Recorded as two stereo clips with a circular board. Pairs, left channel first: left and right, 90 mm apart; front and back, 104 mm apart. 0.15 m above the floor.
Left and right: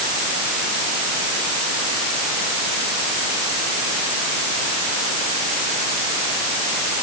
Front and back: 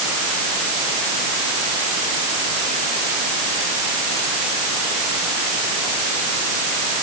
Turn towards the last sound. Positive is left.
No sound to turn to.